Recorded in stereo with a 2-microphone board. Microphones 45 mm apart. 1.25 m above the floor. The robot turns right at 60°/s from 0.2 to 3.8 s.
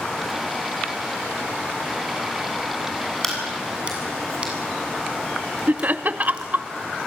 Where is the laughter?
40° right (ahead or behind), 0.9 m.